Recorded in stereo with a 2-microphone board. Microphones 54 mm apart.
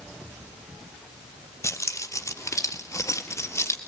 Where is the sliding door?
I don't hear a sliding door.